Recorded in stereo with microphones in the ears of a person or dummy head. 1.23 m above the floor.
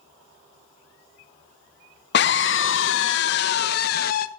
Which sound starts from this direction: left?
A scream, at 2.1 s.